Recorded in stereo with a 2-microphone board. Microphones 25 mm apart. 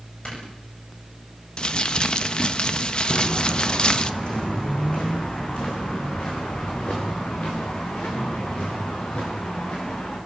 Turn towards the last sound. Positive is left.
turn(degrees=75)  # may be behind; listen again after turning